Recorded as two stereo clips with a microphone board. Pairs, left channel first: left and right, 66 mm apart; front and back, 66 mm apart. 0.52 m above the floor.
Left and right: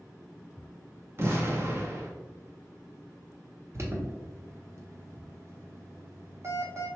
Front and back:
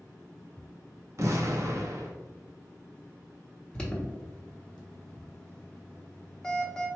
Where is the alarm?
70° right, 0.9 m.